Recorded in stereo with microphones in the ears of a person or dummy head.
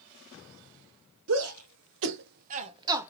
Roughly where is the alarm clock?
I don't hear an alarm clock.